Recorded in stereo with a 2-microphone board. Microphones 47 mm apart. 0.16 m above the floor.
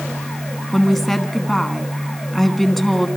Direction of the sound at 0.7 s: 5° left (ahead or behind).